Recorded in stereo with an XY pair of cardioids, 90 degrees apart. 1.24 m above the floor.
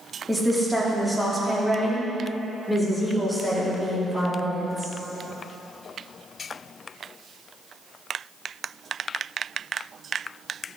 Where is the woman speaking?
Straight ahead, 2 m; by 4.9 s 10° left, 4.5 m.